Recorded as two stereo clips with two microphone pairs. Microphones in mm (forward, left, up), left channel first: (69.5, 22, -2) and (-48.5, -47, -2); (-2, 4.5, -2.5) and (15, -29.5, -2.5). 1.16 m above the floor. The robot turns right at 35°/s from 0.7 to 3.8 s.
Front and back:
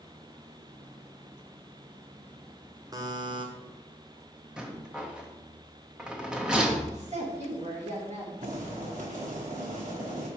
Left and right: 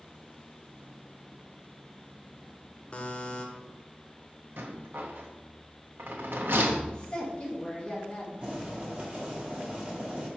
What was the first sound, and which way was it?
A buzzer, 160° left.